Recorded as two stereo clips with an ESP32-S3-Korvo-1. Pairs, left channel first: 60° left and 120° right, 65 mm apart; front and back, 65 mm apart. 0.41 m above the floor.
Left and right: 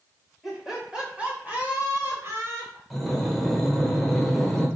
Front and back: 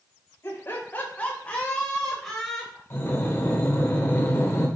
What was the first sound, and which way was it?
Laughter, 35° right.